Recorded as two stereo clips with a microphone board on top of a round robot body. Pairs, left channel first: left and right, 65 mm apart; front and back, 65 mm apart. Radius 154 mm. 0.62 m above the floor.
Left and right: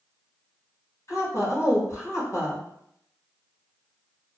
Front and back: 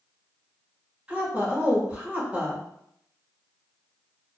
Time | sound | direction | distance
1.1 | a woman speaking | 115° left | 1.5 m